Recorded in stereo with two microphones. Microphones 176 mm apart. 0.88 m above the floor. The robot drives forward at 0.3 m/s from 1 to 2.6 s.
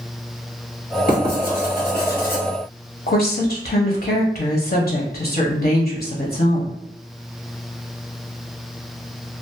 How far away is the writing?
About 1.4 m.